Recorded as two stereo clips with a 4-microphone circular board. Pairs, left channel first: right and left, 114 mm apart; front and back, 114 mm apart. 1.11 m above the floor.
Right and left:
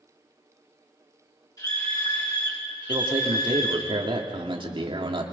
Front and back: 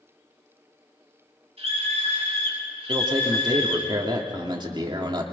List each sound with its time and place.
1.6 s a scream: 150° right, 8 m; by 3.9 s 140° right, 10 m
2.9 s a man speaking: 130° left, 2.5 m